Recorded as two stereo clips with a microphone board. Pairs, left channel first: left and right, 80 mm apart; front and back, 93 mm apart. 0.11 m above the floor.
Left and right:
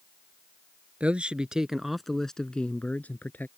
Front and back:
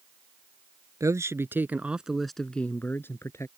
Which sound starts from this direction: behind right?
A man speaking, at 1.0 s.